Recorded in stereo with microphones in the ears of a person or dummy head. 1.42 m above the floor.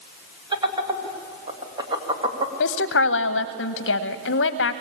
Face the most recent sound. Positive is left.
turn(degrees=70)  # may be behind; listen again after turning